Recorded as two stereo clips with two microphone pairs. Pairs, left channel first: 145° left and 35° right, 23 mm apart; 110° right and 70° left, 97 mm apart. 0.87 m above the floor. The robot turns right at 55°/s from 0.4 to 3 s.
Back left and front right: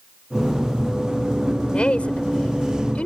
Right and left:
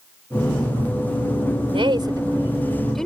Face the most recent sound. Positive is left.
turn(degrees=170)